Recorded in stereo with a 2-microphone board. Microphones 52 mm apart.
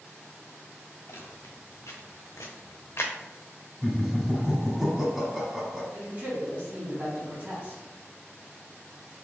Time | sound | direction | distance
1.1 | footsteps | 65° left (ahead or behind) | 1.5 m
3.8 | laughter | 10° right (ahead or behind) | 1.0 m
5.9 | a man speaking | 35° right (ahead or behind) | 1.4 m